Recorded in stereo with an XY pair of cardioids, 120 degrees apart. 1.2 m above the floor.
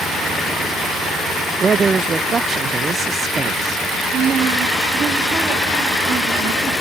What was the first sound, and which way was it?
A man speaking, 35° right.